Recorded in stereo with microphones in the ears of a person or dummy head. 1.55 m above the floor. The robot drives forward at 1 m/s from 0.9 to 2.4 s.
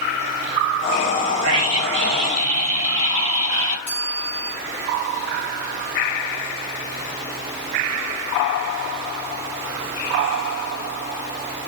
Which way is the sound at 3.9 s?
10° left (ahead or behind).